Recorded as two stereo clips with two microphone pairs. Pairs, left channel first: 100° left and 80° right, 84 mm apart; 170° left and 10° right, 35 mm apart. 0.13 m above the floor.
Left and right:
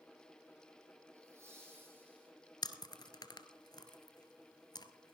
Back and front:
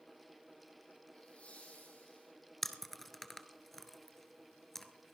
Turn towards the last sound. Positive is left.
turn(degrees=90)